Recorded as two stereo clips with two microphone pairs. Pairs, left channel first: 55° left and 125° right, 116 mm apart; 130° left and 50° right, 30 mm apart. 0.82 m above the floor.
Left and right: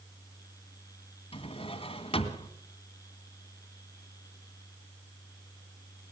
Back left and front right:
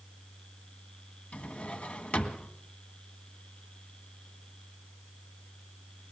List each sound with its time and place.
1.3 s a drawer: 90° left, 1.7 m